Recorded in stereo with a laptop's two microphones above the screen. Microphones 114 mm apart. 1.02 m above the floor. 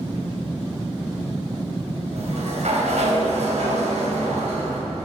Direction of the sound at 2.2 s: 80° right.